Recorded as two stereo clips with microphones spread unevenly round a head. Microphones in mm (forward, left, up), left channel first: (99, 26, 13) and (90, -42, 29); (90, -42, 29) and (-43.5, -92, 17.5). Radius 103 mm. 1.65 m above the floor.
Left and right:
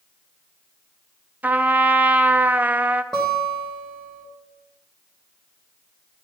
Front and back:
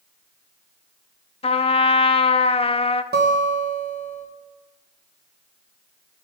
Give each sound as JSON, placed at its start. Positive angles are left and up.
{"t": 1.4, "sound": "a trumpet", "azimuth_deg": -30, "distance_m": 0.6}
{"t": 3.1, "sound": "a guitar", "azimuth_deg": 170, "distance_m": 1.3}